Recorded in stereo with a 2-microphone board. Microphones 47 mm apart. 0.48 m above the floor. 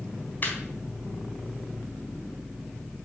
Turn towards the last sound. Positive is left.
turn(degrees=40)  # may be behind; listen again after turning